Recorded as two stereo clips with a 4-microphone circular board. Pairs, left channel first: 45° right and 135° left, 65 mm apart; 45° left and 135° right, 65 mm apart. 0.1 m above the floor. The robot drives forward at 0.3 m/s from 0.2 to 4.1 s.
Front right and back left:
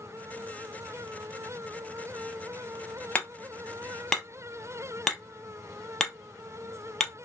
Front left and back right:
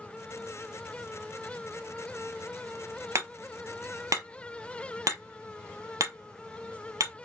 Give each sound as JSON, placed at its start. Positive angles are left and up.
{"t": 3.1, "sound": "hammering", "azimuth_deg": -105, "distance_m": 0.9}